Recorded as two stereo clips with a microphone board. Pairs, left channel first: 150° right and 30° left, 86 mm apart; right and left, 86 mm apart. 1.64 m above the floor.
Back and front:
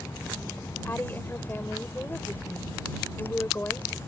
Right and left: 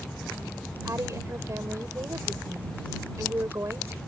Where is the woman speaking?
145° left.